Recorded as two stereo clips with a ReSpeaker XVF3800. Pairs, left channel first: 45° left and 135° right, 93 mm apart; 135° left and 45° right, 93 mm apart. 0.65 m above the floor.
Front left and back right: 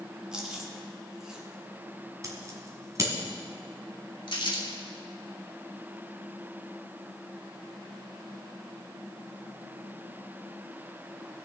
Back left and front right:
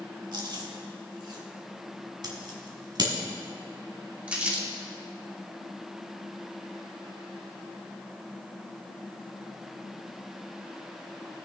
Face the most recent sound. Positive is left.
turn(degrees=30)